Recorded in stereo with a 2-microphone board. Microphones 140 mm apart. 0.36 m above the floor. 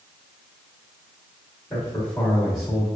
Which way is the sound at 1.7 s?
20° left (ahead or behind).